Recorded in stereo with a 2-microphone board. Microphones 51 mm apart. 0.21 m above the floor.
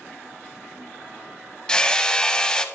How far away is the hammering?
About 0.6 m.